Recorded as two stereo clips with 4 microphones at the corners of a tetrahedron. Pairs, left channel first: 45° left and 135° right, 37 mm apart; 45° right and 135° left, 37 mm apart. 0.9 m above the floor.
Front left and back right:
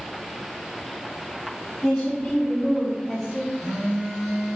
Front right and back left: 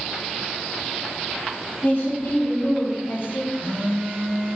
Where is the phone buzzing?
135° left, 2.5 m.